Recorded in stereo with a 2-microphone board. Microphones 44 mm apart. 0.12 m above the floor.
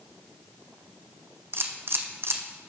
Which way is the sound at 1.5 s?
60° right (ahead or behind).